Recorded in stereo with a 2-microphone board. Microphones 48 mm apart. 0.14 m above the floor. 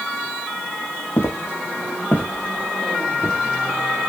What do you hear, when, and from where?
1.2 s footsteps: 80° left, 0.9 m; by 4.1 s 10° right (ahead or behind), 2 m